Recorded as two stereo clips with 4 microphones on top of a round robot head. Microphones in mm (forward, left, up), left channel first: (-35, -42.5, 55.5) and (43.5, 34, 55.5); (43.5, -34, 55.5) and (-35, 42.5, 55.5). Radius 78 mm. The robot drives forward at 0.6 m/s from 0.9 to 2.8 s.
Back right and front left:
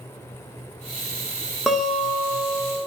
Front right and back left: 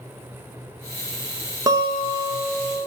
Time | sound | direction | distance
1.7 | a guitar | 125° left | 1.1 m